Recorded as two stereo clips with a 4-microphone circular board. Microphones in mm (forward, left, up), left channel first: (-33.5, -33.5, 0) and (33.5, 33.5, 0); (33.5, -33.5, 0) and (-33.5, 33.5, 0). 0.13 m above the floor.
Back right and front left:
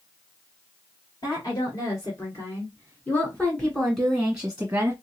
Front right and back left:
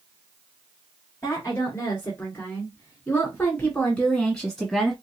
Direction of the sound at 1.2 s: 100° right.